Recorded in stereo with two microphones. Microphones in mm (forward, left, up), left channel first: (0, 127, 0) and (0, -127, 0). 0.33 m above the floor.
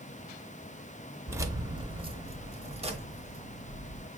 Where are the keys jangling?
10° right (ahead or behind), 0.6 m; by 4.1 s 20° right (ahead or behind), 1.6 m.